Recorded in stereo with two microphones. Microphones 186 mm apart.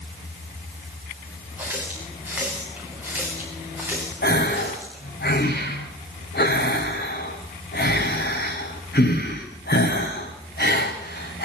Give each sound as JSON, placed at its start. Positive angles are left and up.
{"t": 1.6, "sound": "a running tap", "side_deg": -10, "distance_m": 9.0}
{"t": 4.2, "sound": "a gasp", "side_deg": 65, "distance_m": 6.0}